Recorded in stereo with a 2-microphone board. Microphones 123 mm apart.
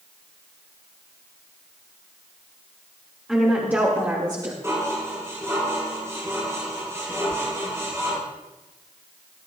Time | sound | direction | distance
3.3 | a woman speaking | 5° right (ahead or behind) | 2.5 m
4.6 | dishes clattering | 25° right (ahead or behind) | 5.5 m
7.3 | a sliding door | 30° right (ahead or behind) | 1.1 m